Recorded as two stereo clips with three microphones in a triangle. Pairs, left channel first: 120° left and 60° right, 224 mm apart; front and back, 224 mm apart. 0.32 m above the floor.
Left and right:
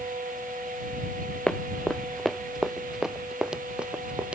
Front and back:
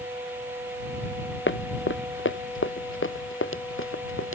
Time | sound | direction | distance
1.5 | running footsteps | 35° left | ?